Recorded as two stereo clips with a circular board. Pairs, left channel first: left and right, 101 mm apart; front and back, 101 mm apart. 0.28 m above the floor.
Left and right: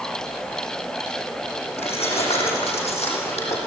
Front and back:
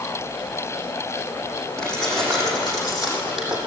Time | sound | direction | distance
1.8 | keys jangling | 85° left | 8 m